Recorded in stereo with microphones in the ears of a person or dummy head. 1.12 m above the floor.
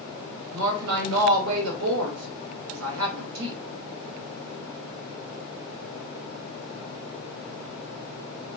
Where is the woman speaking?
80° right, 1.3 m.